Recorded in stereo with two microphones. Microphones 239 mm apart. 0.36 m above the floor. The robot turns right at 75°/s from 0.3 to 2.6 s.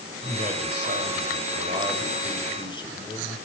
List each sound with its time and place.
0.2 s a man speaking: 145° right, 1.8 m; by 3.4 s 25° left, 1.8 m